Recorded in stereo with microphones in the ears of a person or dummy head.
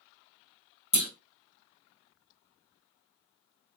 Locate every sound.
0.9 s a clunk: 35° left (ahead or behind), 1.4 m